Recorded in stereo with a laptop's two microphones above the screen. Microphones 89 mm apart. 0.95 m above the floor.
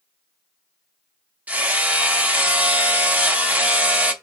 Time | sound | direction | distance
1.5 | hammering | 20° right (ahead or behind) | 0.5 m